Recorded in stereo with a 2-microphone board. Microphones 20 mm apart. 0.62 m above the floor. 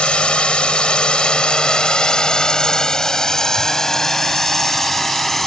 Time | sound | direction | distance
0.0 | a drone | 70° left (ahead or behind) | ?